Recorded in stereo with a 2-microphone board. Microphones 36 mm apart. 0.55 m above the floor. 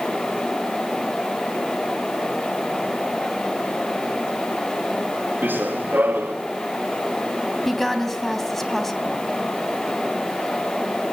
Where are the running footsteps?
65° right (ahead or behind), 3 m.